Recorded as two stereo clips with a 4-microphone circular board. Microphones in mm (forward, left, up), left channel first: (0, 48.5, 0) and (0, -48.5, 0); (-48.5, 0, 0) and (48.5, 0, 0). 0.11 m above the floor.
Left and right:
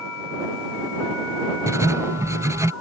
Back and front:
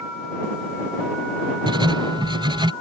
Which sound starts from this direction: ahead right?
Writing, at 1.7 s.